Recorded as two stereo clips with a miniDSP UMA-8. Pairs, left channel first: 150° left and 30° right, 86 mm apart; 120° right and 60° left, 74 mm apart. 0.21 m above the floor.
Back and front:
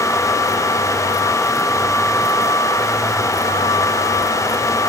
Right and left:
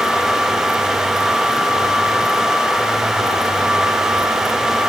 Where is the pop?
No pop in this recording.